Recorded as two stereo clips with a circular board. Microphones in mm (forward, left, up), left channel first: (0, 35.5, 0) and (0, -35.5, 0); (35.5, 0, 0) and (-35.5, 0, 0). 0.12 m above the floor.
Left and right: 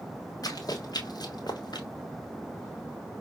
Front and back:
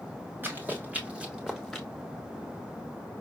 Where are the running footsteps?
120° left, 2.5 m; by 1.9 s 85° left, 1.9 m.